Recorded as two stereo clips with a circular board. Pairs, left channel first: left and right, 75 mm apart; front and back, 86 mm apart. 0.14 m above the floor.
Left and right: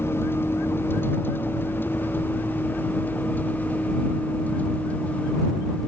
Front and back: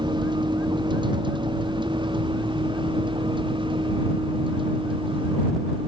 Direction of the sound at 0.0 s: 150° left.